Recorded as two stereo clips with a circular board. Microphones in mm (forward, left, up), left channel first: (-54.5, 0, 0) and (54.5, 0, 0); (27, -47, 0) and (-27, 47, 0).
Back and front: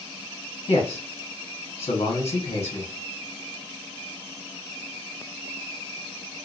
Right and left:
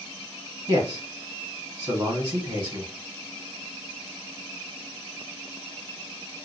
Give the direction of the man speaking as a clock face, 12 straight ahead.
7 o'clock.